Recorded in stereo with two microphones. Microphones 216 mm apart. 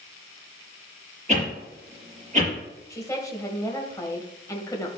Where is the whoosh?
35° right (ahead or behind), 4.5 m.